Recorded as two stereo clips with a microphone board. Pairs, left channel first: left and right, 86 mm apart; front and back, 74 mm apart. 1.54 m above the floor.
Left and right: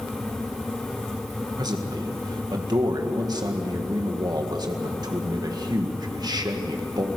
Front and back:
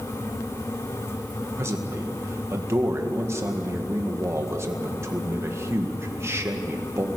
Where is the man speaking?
130° right, 1.9 m.